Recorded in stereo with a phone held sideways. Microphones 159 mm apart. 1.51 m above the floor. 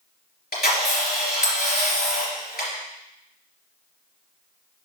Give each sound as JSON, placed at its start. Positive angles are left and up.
{"t": 0.5, "sound": "a camera shutter", "side_deg": 75, "distance_m": 3.5}